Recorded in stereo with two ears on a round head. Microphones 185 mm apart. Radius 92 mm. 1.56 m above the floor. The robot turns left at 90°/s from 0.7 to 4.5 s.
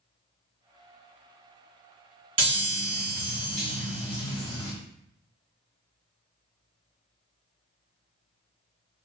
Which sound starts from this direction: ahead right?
A chime, at 2.4 s.